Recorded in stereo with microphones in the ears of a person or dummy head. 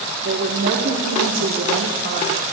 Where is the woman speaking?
60° right (ahead or behind), 1.3 m.